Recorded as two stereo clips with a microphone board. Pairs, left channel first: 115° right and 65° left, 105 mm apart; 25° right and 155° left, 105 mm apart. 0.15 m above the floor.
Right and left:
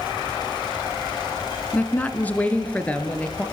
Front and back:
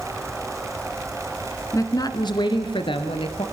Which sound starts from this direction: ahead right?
A woman speaking, at 1.7 s.